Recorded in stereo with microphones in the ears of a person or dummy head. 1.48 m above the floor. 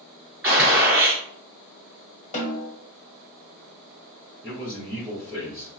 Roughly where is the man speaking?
Centre.